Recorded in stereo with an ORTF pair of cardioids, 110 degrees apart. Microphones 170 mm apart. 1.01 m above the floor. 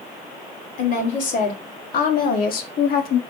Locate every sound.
0.8 s a woman speaking: 55° left, 3 m; by 3.2 s 65° left, 1.6 m